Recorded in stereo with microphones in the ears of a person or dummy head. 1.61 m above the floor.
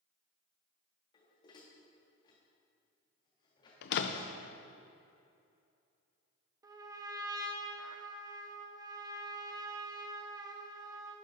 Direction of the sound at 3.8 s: 60° left (ahead or behind).